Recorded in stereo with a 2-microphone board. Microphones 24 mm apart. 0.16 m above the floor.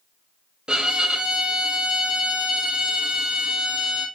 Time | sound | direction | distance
0.7 | a violin | 40° right (ahead or behind) | 0.7 m